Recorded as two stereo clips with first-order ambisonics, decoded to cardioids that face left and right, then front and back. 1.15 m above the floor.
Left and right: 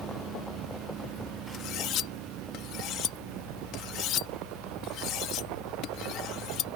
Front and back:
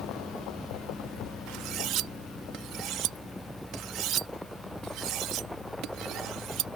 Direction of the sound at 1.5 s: 135° left.